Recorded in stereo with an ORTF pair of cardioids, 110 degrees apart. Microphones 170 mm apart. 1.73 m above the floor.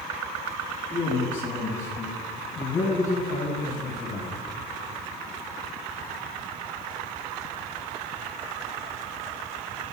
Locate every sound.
0.9 s a man speaking: 20° left, 2.5 m; by 4.3 s 65° left, 3 m